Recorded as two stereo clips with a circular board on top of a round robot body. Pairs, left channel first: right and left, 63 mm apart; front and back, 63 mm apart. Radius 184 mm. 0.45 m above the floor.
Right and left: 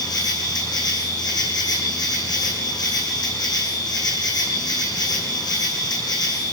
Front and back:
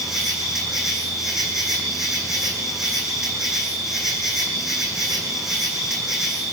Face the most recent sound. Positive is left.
turn(degrees=-95)